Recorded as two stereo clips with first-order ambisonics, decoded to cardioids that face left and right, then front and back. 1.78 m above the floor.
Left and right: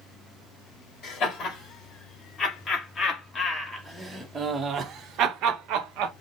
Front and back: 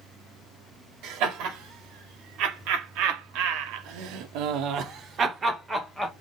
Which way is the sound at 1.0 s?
150° left.